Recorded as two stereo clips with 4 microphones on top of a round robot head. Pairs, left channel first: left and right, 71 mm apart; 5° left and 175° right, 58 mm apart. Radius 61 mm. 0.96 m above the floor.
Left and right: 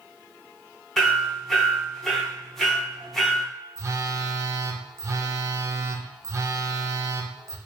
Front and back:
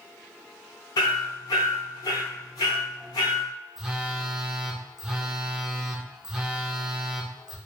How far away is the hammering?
About 0.8 m.